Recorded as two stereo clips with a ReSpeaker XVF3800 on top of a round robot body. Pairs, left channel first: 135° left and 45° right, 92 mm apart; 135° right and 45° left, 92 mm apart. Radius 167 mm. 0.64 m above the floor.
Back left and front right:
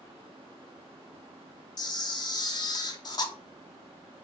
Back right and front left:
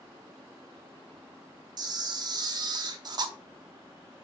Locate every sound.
1.8 s a camera shutter: 90° left, 0.7 m